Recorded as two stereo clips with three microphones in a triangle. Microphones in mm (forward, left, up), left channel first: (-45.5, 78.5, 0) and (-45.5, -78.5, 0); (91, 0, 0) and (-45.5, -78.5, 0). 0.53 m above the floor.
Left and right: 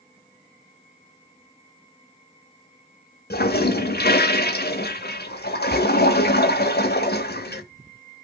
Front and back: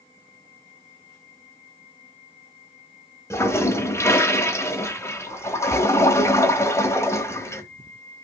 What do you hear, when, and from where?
3.3 s a toilet flushing: 100° left, 0.8 m